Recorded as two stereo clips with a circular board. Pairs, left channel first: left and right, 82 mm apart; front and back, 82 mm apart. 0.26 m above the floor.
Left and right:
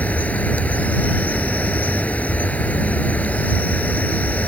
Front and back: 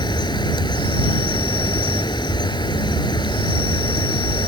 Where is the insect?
20° left.